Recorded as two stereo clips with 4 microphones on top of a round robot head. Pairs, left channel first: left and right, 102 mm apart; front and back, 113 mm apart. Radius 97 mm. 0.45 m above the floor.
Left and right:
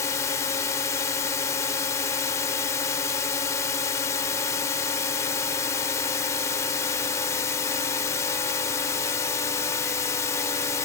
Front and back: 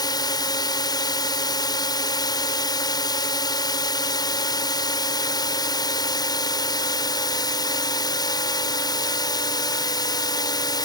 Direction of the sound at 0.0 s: 35° left.